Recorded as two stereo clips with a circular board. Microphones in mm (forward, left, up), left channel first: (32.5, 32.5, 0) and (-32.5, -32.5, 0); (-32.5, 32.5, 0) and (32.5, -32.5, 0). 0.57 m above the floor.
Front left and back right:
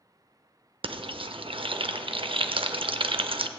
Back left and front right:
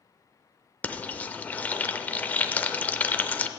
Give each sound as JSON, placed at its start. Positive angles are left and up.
{"t": 0.8, "sound": "frying", "azimuth_deg": -150, "distance_m": 0.5}